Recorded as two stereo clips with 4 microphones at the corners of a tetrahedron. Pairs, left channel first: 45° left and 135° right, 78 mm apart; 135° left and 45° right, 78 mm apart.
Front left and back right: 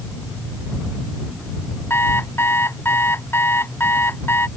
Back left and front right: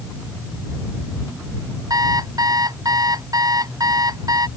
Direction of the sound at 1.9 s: 15° right.